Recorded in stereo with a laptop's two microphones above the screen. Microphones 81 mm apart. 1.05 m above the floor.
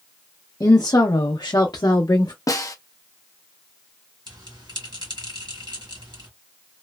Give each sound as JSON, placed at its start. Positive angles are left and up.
{"t": 0.6, "sound": "a woman speaking", "side_deg": 40, "distance_m": 0.5}
{"t": 2.5, "sound": "a snare drum", "side_deg": 45, "distance_m": 0.5}
{"t": 4.3, "sound": "a bell", "side_deg": -65, "distance_m": 1.9}